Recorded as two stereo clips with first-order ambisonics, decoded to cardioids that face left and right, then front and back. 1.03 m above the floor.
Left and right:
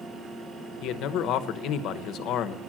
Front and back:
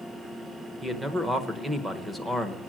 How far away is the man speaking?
About 0.9 m.